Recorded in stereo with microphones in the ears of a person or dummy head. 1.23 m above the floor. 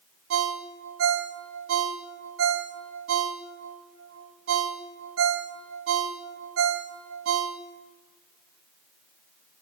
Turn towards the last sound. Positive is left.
turn(degrees=-80)